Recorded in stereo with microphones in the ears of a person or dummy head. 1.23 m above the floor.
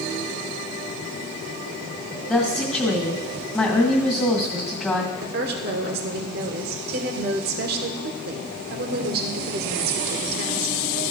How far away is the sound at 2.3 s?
About 1.9 m.